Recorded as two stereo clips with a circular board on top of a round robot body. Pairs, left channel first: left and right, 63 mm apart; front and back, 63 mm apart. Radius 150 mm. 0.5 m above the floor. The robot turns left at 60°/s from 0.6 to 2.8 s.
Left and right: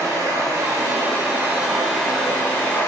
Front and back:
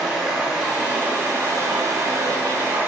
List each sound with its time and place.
0.0 s running water: 100° right, 1.0 m; by 2.9 s 130° left, 1.0 m